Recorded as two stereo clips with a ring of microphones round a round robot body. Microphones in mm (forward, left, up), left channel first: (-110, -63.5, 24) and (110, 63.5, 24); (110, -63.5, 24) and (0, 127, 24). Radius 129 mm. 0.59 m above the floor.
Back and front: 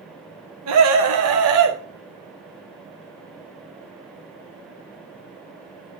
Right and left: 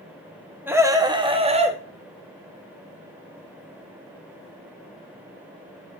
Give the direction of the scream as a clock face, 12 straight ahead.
11 o'clock.